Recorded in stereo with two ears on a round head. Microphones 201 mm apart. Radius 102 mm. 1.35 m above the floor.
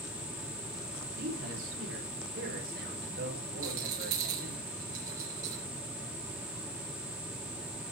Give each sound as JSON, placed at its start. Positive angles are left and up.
{"t": 1.1, "sound": "a man speaking", "side_deg": -60, "distance_m": 3.5}
{"t": 3.6, "sound": "a rattle", "side_deg": -60, "distance_m": 4.5}